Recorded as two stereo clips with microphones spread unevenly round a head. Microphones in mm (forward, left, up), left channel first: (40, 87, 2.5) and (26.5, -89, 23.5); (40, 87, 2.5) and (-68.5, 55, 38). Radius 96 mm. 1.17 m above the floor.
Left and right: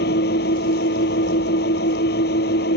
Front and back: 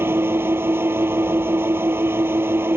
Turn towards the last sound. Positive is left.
turn(degrees=130)